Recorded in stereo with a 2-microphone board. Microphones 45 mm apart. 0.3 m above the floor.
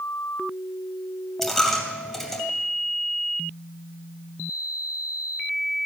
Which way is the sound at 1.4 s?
10° left (ahead or behind).